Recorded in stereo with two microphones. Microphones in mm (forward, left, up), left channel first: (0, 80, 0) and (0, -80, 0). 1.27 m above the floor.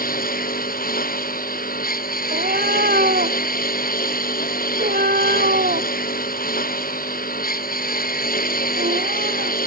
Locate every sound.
0.0 s a lawn mower: 75° left (ahead or behind)
2.3 s a cat meowing: 75° right (ahead or behind)